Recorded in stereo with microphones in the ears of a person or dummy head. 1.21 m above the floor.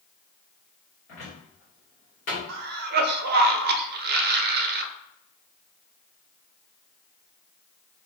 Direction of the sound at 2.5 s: 55° right (ahead or behind).